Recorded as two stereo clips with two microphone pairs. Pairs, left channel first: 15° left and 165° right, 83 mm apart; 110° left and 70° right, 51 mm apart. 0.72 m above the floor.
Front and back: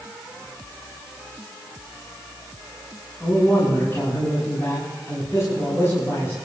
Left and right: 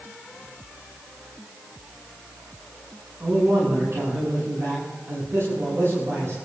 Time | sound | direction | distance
3.2 | a man speaking | 45° right | 7 m